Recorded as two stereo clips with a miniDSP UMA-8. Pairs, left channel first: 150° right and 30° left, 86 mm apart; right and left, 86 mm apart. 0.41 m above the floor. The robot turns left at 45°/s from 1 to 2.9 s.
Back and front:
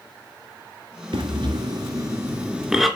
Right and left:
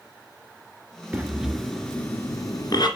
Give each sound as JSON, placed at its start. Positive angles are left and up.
{"t": 1.1, "sound": "breathing", "azimuth_deg": 20, "distance_m": 2.5}